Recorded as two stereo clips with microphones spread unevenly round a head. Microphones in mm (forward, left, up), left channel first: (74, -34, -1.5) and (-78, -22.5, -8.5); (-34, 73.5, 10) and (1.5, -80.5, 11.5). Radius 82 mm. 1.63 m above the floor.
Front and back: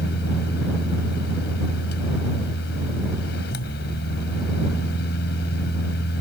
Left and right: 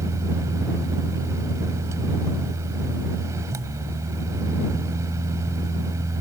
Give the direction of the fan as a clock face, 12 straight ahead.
12 o'clock.